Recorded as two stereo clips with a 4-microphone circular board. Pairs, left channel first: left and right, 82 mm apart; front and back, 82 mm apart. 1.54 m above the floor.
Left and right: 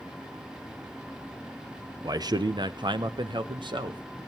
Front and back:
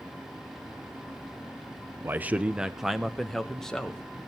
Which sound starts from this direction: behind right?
A man speaking, at 2.0 s.